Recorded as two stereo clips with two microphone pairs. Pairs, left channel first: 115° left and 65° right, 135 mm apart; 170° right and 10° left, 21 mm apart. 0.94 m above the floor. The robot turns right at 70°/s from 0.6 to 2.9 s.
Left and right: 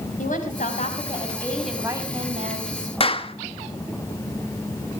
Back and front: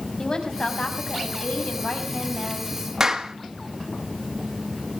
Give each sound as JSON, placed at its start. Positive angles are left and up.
{"t": 0.2, "sound": "a woman speaking", "azimuth_deg": 130, "distance_m": 5.5}
{"t": 3.0, "sound": "a clap", "azimuth_deg": 70, "distance_m": 1.3}